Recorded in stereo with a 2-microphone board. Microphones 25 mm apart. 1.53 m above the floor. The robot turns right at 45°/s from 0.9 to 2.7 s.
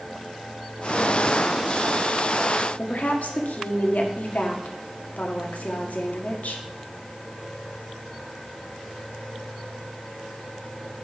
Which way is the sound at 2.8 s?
85° left.